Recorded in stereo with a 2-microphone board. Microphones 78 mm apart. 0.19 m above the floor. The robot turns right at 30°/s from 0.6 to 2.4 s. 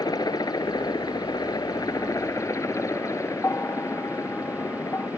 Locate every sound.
0.0 s a helicopter: 75° left; by 5.2 s 130° left
3.4 s a bell: 35° left (ahead or behind)